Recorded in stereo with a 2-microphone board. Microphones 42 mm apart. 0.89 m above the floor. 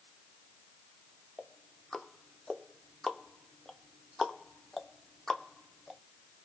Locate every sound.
1.4 s ticking: 10° left (ahead or behind), 0.5 m